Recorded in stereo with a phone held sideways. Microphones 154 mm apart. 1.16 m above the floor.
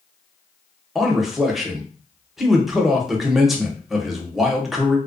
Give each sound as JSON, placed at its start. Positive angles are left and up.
{"t": 0.9, "sound": "a man speaking", "side_deg": 0, "distance_m": 0.7}